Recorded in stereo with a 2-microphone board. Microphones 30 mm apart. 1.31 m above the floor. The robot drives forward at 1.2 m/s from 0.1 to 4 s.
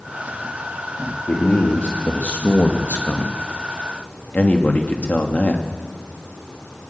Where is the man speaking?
45° left (ahead or behind), 3 m; by 5.6 s 55° left (ahead or behind), 2.5 m.